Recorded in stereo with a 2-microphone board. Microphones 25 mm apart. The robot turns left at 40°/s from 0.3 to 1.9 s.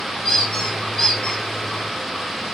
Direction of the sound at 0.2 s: 80° left.